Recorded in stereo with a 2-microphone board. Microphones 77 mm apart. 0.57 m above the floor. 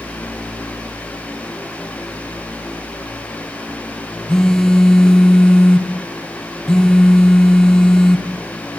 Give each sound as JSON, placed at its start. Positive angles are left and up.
{"t": 4.3, "sound": "a phone buzzing", "side_deg": 5, "distance_m": 1.2}